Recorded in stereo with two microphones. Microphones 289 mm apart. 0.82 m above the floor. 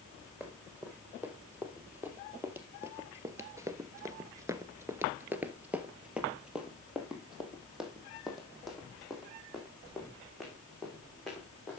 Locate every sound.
0.4 s running footsteps: 5° right (ahead or behind), 2.5 m; by 11.8 s centre (ahead or behind), 4.5 m